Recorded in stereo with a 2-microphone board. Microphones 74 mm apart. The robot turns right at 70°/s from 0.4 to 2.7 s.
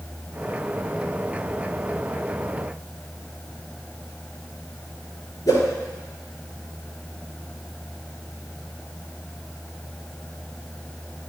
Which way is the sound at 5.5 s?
55° left (ahead or behind).